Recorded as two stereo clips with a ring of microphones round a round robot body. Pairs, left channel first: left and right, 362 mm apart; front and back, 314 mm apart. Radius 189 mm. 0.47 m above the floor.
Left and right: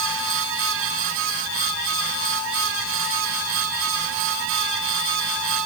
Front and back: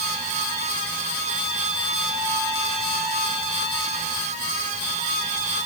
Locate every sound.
Only background noise.